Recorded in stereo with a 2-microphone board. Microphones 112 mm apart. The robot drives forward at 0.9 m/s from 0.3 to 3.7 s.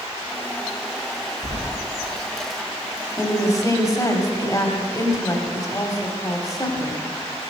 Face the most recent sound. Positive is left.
turn(degrees=30)  # may be behind; listen again after turning